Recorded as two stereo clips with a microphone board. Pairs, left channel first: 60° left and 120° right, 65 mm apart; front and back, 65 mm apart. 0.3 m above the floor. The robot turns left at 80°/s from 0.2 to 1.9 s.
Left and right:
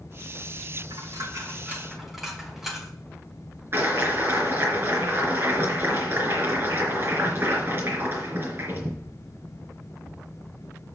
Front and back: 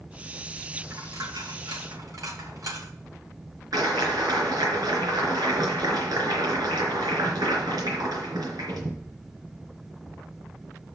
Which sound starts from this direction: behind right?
A dropped coin, at 0.9 s.